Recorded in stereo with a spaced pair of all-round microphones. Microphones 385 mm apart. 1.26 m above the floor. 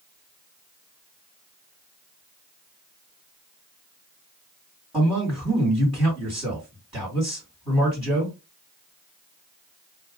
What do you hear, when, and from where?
4.9 s a man speaking: 5° right (ahead or behind), 2 m